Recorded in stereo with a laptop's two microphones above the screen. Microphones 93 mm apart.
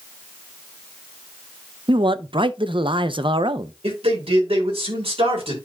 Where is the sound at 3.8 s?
85° right, 4 m.